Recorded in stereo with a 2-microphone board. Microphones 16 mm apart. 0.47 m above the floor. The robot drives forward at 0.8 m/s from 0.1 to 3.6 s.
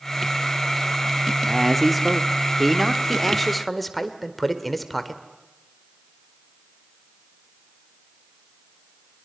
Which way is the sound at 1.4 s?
Centre (ahead or behind).